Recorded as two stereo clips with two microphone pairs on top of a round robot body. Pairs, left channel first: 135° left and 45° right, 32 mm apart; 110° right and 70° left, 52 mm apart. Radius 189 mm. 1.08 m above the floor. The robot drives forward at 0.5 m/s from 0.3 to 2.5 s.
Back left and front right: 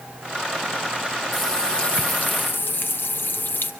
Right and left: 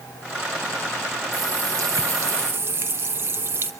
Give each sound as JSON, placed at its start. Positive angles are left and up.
{"t": 1.3, "sound": "a running tap", "azimuth_deg": 55, "distance_m": 0.7}